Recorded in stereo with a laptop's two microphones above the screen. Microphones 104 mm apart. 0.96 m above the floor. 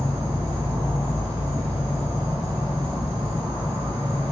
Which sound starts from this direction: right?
An insect, at 0.0 s.